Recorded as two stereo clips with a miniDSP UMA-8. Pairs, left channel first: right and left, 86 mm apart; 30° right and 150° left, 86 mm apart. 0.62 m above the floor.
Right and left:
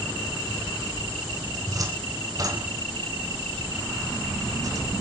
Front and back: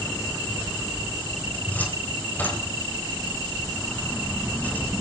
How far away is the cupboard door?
About 4 m.